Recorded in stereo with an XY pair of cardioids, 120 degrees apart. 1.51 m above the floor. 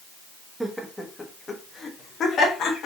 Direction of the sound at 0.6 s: 5° right.